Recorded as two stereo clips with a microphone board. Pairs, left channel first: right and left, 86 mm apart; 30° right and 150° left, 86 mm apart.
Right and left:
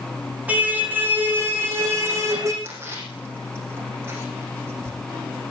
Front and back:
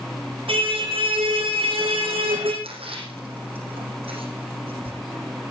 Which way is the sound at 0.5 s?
165° left.